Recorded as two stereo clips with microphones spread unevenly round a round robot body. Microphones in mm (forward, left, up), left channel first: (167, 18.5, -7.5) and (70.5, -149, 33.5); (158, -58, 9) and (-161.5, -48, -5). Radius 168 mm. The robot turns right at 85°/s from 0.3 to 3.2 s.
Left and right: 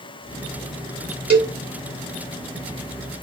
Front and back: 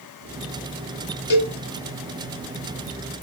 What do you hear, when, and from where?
1.3 s a cowbell: 55° right, 1.4 m; by 1.6 s 30° right, 1.4 m